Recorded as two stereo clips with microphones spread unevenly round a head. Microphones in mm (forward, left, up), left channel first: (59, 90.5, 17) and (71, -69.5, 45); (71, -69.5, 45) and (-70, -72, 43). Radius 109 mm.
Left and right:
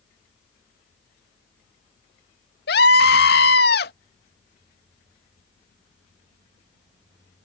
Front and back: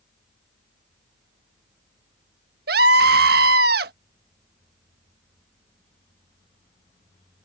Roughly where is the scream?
Behind left.